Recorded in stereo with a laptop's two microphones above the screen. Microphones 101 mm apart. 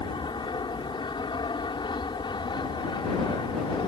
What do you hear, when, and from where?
0.0 s an aircraft: 50° left (ahead or behind)